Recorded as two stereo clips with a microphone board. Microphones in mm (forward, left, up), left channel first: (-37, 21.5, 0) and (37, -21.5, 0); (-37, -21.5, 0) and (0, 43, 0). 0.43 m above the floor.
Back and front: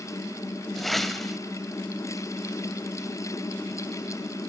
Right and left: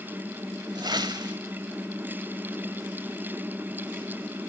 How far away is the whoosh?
About 1.0 m.